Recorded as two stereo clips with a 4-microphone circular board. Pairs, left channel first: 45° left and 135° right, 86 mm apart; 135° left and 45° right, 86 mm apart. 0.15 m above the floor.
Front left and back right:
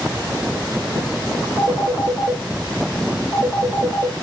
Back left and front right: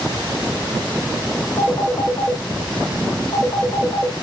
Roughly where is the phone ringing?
Behind.